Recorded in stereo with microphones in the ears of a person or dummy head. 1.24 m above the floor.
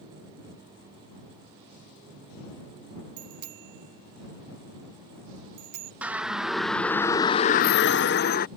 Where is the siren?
5° right (ahead or behind); by 8.5 s 45° left (ahead or behind).